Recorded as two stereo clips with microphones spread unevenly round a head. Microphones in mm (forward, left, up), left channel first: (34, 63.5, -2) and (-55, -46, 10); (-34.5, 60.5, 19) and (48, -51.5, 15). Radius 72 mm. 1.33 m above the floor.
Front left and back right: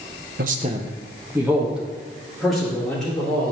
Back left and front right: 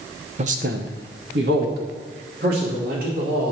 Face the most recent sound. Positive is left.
turn(degrees=-35)